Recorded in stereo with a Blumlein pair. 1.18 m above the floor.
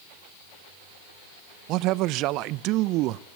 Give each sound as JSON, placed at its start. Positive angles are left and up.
{"t": 1.7, "sound": "a man speaking", "azimuth_deg": -40, "distance_m": 0.6}